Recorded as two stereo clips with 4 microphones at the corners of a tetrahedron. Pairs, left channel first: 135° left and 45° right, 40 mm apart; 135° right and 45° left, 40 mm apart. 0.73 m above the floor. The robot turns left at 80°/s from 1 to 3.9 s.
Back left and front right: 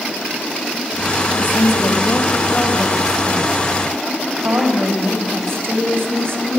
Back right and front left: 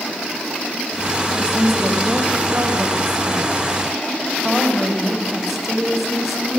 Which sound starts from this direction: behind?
A woman speaking, at 1.3 s.